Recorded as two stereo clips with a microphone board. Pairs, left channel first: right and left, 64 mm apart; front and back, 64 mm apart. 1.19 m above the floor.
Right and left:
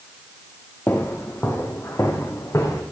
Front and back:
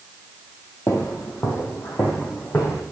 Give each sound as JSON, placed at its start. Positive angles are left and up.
{"t": 0.9, "sound": "footsteps", "azimuth_deg": -35, "distance_m": 2.0}